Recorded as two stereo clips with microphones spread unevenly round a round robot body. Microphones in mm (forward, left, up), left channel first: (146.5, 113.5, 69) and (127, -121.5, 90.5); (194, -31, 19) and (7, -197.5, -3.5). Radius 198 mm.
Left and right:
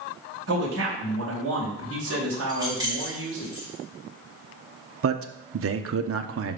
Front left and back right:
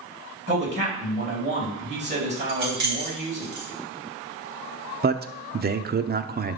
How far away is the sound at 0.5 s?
About 3.5 m.